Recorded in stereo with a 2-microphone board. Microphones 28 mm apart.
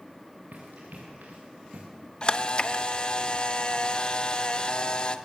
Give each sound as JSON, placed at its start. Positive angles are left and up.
{"t": 0.5, "sound": "running footsteps", "side_deg": -70, "distance_m": 5.0}
{"t": 2.2, "sound": "a camera shutter", "side_deg": 30, "distance_m": 0.8}